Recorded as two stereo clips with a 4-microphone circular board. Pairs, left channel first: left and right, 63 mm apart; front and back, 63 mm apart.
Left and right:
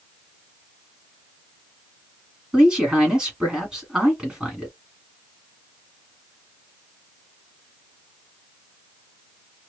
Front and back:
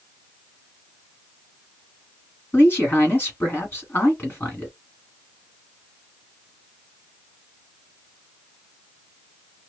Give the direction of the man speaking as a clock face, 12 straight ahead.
1 o'clock.